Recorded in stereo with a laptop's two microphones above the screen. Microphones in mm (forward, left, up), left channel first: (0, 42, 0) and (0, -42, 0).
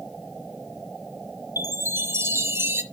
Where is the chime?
30° right (ahead or behind), 0.9 m.